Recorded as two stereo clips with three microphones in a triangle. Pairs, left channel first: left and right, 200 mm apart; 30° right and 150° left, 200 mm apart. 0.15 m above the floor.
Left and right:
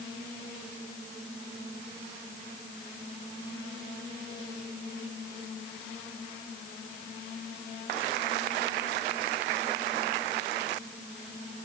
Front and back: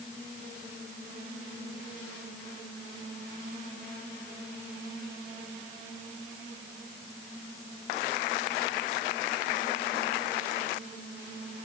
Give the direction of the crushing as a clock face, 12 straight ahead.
I don't hear crushing.